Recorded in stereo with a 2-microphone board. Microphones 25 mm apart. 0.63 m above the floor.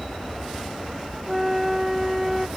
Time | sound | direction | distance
0.0 | an aircraft | 65° right (ahead or behind) | ?
1.3 | a flute | 10° right (ahead or behind) | ?